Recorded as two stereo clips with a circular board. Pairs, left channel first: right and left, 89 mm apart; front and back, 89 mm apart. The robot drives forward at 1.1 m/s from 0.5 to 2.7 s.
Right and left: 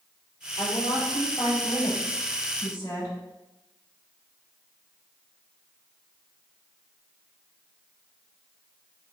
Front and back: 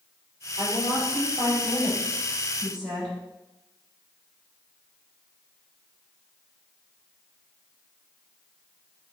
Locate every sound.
0.6 s a woman speaking: 130° right, 4.5 m; by 3.1 s 145° right, 6 m